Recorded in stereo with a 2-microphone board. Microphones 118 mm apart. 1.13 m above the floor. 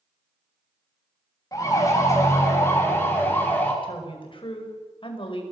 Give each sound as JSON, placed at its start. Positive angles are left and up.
{"t": 1.5, "sound": "a siren", "side_deg": 30, "distance_m": 9.0}
{"t": 3.8, "sound": "a woman speaking", "side_deg": 50, "distance_m": 5.5}